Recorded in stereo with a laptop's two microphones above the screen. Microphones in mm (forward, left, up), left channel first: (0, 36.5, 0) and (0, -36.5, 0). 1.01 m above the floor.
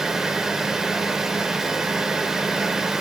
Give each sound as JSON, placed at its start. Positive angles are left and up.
{"t": 0.0, "sound": "a fan", "side_deg": -5, "distance_m": 0.8}